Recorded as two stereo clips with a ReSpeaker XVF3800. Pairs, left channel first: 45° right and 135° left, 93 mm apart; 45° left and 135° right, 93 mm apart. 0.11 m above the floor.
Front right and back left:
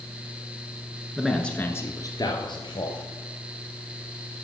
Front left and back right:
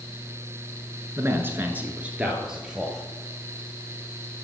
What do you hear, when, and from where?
1.2 s a man speaking: 150° right, 1.4 m; by 3.0 s 50° right, 2.5 m